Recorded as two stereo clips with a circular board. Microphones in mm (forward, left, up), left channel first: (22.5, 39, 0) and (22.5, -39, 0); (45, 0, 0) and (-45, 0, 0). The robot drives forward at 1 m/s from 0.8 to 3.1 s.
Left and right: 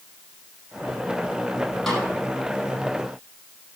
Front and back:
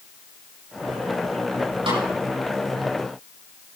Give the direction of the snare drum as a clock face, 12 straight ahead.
6 o'clock.